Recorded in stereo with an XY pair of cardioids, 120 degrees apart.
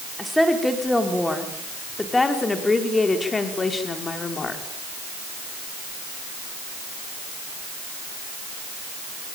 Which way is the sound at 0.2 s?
5° left.